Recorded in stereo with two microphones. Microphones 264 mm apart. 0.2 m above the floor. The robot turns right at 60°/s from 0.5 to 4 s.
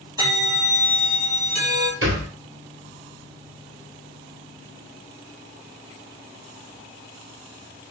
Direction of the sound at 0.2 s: 165° right.